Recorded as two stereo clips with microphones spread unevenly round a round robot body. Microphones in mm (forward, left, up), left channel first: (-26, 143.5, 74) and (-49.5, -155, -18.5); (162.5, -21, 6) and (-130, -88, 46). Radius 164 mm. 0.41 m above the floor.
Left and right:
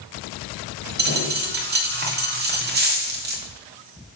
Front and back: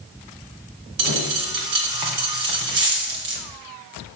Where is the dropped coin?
150° right, 2 m.